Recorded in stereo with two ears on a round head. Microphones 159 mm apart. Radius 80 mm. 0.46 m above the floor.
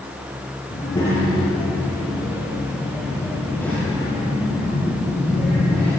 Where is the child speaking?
25° left (ahead or behind), 6.5 m; by 5.9 s 5° left (ahead or behind), 10 m.